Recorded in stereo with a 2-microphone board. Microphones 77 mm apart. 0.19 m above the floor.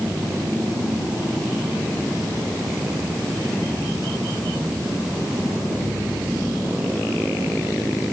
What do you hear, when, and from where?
Only background noise.